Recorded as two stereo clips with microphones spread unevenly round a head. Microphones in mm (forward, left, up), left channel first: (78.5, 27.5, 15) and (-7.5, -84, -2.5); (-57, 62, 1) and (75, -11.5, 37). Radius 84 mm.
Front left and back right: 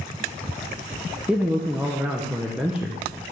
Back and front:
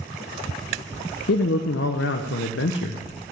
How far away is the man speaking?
About 0.8 m.